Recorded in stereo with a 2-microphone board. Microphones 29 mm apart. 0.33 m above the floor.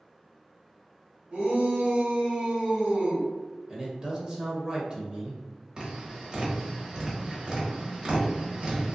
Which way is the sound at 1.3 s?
50° right (ahead or behind).